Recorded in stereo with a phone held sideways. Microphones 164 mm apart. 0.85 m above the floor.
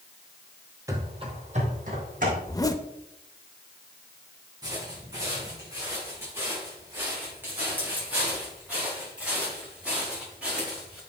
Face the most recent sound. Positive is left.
turn(degrees=-5)  # may be behind; listen again after turning